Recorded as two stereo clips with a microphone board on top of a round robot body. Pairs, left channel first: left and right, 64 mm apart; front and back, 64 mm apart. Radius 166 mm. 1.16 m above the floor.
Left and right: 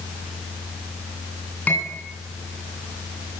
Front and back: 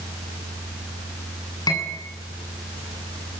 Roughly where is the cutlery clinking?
Ahead left.